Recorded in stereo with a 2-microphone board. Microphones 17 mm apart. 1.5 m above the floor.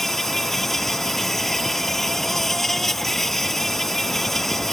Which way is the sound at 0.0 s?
20° left (ahead or behind).